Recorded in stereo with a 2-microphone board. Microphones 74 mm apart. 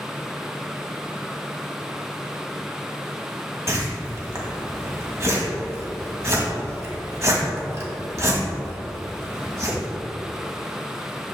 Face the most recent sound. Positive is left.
turn(degrees=-40)  # may be behind; listen again after turning